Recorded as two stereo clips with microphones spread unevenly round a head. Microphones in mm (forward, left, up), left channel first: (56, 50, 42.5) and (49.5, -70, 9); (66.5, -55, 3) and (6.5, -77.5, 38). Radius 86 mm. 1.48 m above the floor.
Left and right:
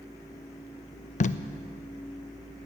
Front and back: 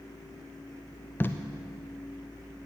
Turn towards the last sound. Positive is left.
turn(degrees=60)